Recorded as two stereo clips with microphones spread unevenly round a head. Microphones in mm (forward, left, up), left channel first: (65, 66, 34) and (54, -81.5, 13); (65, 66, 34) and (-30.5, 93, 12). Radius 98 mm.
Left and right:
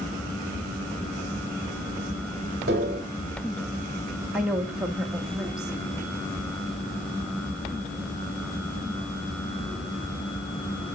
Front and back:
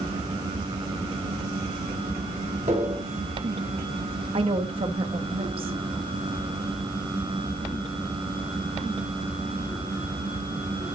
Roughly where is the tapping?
Behind right.